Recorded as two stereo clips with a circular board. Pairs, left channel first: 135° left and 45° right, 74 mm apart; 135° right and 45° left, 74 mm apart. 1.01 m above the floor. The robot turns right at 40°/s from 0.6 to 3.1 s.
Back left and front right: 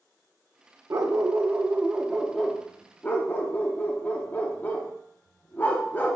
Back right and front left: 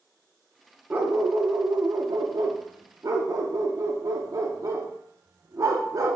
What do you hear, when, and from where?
0.9 s a dog barking: 15° right, 0.7 m; by 6.2 s 75° left, 0.7 m